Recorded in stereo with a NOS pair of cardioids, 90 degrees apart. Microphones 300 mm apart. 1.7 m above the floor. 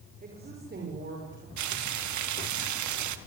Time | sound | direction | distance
0.2 | a woman speaking | 30° right | 6 m
1.6 | frying | 70° right | 1.8 m